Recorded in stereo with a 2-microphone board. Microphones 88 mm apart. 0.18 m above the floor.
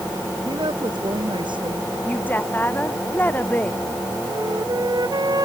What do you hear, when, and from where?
0.5 s a woman speaking: 70° right (ahead or behind)
2.0 s a woman speaking: 20° left (ahead or behind)
4.3 s a flute: 55° right (ahead or behind)